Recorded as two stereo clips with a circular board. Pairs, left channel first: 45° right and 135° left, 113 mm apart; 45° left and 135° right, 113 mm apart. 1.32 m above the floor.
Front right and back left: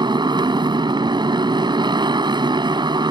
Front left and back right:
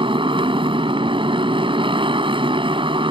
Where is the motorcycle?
175° right.